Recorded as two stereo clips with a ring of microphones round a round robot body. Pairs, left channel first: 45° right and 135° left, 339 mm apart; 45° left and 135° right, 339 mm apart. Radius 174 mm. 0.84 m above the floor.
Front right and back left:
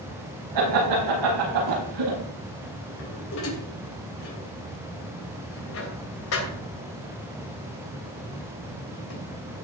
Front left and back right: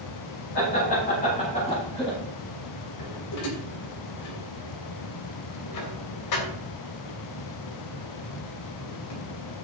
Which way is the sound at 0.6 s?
110° left.